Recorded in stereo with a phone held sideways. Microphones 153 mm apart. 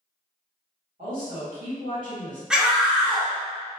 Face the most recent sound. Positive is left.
turn(degrees=-5)  # may be behind; listen again after turning